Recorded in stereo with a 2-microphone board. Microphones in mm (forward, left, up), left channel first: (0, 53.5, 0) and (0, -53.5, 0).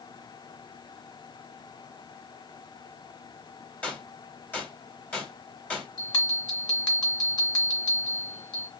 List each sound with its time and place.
3.8 s a gunshot: 15° left (ahead or behind), 1.5 m
6.0 s a bell: 45° left (ahead or behind), 2 m